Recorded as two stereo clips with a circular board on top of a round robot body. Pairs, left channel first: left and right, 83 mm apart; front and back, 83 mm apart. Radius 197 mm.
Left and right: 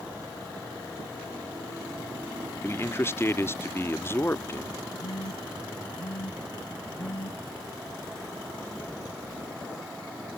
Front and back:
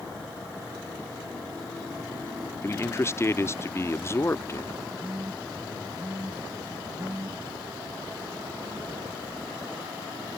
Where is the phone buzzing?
105° left.